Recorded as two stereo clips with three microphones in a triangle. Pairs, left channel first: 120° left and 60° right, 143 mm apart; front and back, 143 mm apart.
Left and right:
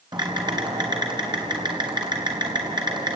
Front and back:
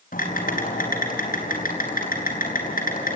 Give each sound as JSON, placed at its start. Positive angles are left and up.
{"t": 0.1, "sound": "typing on a keyboard", "azimuth_deg": 0, "distance_m": 4.5}